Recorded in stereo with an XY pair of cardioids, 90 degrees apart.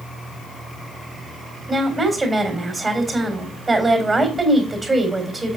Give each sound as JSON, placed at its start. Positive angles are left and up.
{"t": 1.7, "sound": "a woman speaking", "azimuth_deg": -20, "distance_m": 3.5}